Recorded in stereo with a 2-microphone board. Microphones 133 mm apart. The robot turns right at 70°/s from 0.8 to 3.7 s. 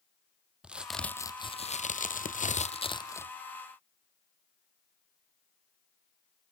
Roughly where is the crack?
Ahead.